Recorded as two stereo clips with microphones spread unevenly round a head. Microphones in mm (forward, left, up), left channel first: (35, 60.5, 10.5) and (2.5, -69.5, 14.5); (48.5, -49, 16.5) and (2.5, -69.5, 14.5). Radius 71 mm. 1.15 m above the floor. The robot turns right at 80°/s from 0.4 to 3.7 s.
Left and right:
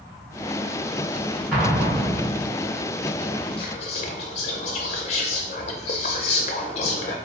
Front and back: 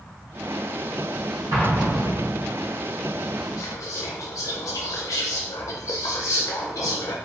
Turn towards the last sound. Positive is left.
turn(degrees=35)